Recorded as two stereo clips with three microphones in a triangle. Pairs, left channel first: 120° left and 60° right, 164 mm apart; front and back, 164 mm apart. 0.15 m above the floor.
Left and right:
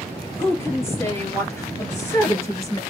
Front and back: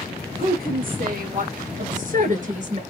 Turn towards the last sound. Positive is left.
turn(degrees=-175)